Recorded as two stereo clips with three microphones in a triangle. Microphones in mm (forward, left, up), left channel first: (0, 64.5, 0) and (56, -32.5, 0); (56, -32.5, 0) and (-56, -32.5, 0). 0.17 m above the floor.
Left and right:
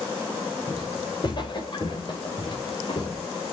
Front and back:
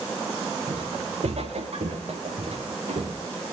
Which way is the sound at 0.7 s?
165° left.